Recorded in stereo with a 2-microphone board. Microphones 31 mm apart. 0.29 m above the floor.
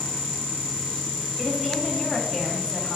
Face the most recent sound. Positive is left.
turn(degrees=5)  # may be behind; listen again after turning